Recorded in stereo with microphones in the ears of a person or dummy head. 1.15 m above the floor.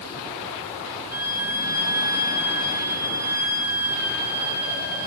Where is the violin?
15° right (ahead or behind), 3 m.